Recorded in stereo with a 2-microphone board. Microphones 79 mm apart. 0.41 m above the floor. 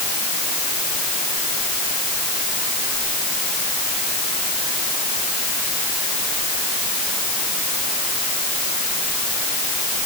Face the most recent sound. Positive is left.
No sound to turn to.